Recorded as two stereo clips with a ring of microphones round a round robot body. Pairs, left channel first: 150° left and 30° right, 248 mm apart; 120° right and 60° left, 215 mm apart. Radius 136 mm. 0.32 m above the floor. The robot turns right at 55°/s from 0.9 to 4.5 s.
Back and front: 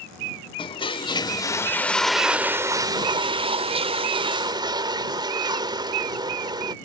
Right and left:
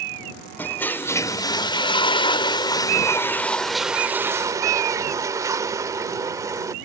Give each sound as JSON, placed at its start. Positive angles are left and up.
{"t": 0.6, "sound": "a toilet flushing", "azimuth_deg": 175}